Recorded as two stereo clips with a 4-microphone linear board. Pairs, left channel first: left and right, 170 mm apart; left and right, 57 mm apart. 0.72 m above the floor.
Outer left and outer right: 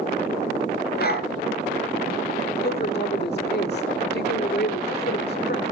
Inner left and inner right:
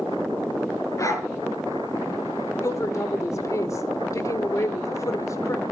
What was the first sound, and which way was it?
A dog barking, 65° left (ahead or behind).